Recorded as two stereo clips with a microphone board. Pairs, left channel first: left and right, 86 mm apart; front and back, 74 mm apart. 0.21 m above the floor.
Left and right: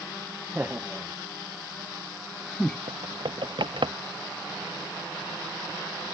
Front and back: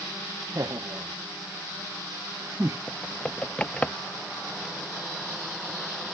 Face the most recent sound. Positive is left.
turn(degrees=-75)